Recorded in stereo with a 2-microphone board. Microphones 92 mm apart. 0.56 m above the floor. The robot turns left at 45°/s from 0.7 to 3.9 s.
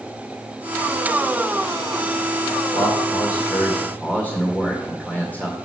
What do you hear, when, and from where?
2.7 s a man speaking: 75° left, 2 m; by 5.6 s 20° left, 2 m